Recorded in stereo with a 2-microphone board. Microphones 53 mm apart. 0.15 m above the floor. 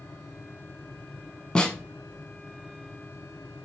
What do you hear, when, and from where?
1.6 s a snare drum: 20° left (ahead or behind), 0.7 m